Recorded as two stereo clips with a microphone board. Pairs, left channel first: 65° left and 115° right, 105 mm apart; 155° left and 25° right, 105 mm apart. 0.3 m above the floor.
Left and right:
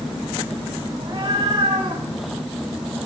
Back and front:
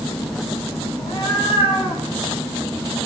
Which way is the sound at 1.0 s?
165° right.